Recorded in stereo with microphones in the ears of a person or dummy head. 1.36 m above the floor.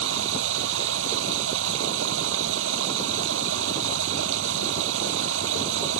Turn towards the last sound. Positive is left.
turn(degrees=-80)